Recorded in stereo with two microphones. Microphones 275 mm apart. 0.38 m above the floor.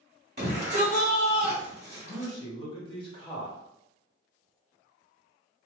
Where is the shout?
40° right (ahead or behind), 1.5 m.